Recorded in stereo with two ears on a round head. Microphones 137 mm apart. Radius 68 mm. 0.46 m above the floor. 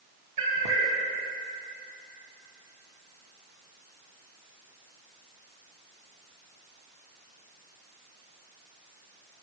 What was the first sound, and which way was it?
A cat meowing, 50° right (ahead or behind).